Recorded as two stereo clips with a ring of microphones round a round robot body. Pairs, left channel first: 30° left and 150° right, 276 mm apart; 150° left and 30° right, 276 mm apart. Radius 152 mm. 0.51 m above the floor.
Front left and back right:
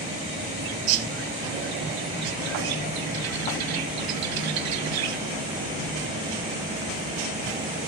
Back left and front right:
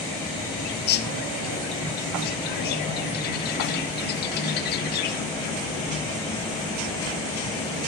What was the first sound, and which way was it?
A bird, 155° right.